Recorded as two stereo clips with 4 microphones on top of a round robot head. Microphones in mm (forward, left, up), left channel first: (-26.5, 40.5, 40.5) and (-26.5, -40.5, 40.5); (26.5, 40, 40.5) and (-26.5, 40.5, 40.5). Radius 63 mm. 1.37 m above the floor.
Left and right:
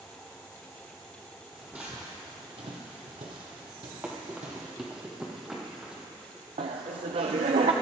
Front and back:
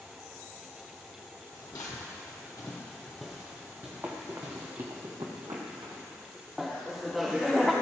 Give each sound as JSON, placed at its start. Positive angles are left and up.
{"t": 1.5, "sound": "footsteps", "azimuth_deg": -5, "distance_m": 2.0}
{"t": 4.0, "sound": "running footsteps", "azimuth_deg": -150, "distance_m": 1.5}
{"t": 6.6, "sound": "laughter", "azimuth_deg": -95, "distance_m": 0.8}